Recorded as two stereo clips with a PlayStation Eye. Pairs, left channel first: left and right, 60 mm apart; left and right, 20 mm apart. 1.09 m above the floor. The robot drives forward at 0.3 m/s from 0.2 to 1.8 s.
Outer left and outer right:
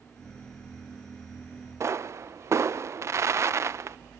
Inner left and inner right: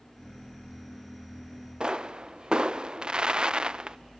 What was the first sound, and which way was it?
A pop, 50° right (ahead or behind).